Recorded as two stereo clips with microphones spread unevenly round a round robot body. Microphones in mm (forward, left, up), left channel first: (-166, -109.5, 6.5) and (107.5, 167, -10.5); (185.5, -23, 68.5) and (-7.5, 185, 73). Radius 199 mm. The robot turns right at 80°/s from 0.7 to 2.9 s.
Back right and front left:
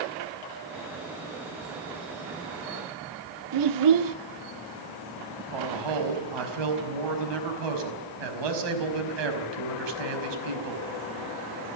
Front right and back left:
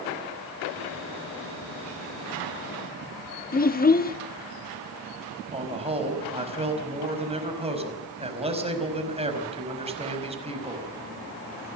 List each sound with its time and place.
3.5 s a child speaking: 10° left, 1.4 m
5.5 s a man speaking: 65° left, 5 m